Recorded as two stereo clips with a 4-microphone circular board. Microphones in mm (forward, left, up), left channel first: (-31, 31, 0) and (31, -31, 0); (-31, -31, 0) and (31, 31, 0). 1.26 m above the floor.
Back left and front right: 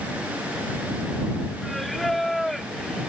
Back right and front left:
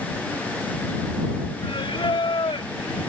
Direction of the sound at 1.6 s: 135° right.